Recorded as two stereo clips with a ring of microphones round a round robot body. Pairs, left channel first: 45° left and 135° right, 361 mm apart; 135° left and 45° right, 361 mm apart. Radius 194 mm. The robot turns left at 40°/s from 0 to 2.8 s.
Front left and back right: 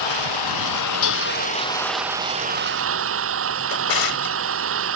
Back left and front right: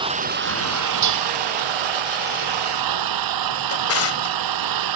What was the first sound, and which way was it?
An engine running, 35° left.